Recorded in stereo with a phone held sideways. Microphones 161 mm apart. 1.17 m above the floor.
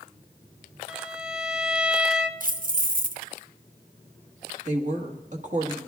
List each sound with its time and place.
0.9 s a violin: 5° right (ahead or behind), 0.6 m
2.4 s keys jangling: 60° right (ahead or behind), 0.7 m
4.7 s a woman speaking: 50° right (ahead or behind), 1.5 m